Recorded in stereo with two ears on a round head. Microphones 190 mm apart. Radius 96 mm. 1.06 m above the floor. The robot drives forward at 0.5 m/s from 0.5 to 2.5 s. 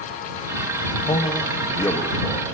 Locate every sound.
1.1 s a man speaking: 20° left (ahead or behind), 0.9 m; by 2.5 s 15° left (ahead or behind), 1.5 m